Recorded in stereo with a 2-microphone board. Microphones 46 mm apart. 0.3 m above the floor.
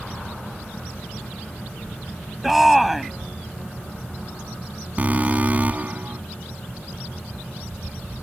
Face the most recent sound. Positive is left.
turn(degrees=-35)  # may be behind; listen again after turning